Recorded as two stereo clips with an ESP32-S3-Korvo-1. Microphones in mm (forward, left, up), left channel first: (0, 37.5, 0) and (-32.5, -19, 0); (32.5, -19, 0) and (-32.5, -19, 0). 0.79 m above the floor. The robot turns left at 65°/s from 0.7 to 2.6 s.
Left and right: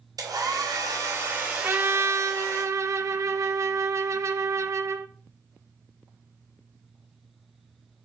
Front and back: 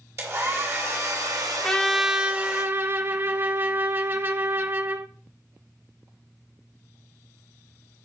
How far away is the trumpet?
About 0.7 m.